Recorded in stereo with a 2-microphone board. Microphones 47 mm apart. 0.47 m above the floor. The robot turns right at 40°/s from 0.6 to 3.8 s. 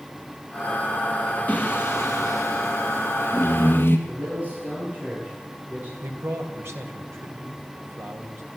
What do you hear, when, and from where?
1.5 s singing: 40° left, 2.5 m; by 4.0 s 130° left, 2.5 m
4.1 s a man speaking: 40° right (ahead or behind), 9.5 m
6.0 s a man speaking: 70° right (ahead or behind), 3 m